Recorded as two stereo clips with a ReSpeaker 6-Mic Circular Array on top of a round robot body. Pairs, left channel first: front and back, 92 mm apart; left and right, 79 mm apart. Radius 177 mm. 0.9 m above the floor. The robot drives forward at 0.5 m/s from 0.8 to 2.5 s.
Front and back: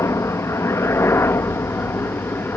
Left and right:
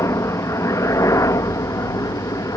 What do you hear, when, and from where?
0.0 s a helicopter: 50° left; by 2.6 s 60° left